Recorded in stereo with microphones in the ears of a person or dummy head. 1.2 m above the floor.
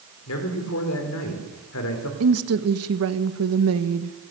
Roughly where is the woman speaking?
Right.